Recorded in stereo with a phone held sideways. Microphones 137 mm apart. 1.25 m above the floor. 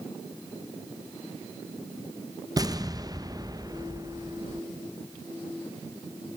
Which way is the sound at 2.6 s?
30° right (ahead or behind).